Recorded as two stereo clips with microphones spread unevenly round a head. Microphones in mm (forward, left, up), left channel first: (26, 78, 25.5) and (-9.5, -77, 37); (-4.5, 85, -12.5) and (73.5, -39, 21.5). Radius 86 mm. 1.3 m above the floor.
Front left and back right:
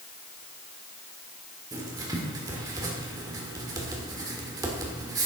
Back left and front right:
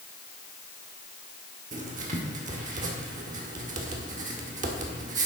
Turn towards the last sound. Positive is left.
turn(degrees=-35)